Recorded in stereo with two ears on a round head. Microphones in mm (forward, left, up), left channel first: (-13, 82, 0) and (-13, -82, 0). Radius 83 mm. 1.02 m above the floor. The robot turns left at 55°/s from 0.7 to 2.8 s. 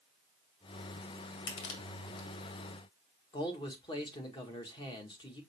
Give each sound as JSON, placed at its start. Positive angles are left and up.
{"t": 1.5, "sound": "crushing", "side_deg": 70, "distance_m": 1.7}
{"t": 3.3, "sound": "a man speaking", "side_deg": 25, "distance_m": 1.5}